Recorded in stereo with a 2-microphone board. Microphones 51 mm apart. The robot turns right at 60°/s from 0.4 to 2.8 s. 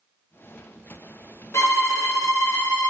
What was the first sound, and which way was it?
A violin, 65° left.